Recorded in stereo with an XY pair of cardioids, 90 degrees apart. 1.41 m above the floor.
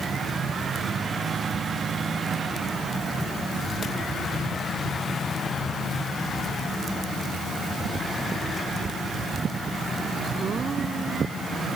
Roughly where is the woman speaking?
I don't hear a woman speaking.